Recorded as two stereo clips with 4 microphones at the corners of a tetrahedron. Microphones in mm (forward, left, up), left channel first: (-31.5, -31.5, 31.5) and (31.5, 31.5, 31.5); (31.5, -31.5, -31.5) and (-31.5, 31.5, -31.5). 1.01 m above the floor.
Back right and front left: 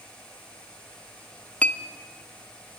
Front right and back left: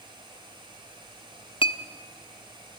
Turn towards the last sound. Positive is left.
turn(degrees=-60)